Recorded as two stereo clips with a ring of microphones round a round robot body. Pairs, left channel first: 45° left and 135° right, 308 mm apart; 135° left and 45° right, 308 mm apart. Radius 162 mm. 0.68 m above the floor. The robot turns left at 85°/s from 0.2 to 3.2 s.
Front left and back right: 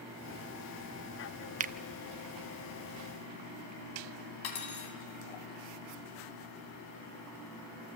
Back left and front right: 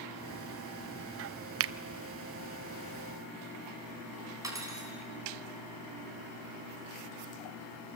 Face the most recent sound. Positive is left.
turn(degrees=35)